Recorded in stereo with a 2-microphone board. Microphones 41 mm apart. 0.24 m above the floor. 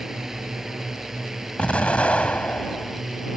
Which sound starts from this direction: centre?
A drone, at 0.0 s.